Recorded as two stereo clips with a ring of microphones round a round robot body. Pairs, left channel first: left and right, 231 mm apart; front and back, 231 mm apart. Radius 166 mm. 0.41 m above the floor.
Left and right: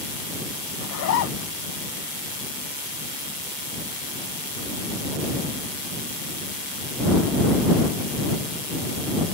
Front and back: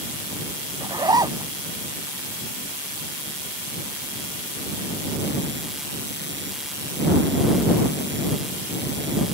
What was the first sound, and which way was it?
A zipper, 110° left.